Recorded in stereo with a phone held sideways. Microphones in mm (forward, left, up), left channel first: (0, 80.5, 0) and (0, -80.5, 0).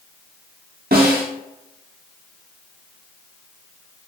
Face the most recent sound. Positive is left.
turn(degrees=-75)  # may be behind; listen again after turning